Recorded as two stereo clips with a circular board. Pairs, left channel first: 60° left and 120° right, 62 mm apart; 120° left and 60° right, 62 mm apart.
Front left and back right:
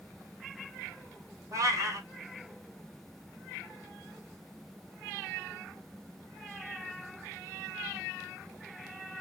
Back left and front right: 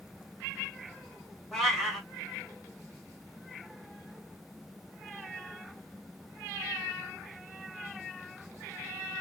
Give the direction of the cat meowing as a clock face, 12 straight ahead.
5 o'clock.